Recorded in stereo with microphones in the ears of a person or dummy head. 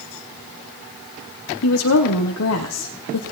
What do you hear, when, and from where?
1.6 s a woman speaking: 85° left, 1.0 m